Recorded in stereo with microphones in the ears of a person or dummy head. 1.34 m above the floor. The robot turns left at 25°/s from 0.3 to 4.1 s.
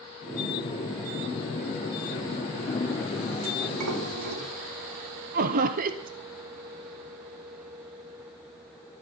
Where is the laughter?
40° right (ahead or behind), 0.7 m.